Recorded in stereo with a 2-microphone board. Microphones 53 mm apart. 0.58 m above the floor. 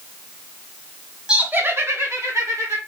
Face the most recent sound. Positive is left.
turn(degrees=-70)  # may be behind; listen again after turning